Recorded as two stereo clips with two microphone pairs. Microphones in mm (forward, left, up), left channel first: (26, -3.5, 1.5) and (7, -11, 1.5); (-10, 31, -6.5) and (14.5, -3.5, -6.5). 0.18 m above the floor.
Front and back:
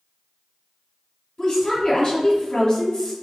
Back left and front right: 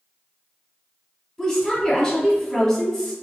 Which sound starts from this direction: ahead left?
A woman speaking, at 1.4 s.